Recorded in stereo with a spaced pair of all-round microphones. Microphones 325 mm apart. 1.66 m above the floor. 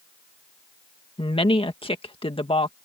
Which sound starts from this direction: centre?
A woman speaking, at 1.2 s.